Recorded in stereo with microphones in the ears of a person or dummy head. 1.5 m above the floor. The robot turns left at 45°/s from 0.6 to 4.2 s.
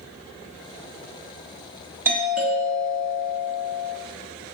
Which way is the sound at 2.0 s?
10° right (ahead or behind).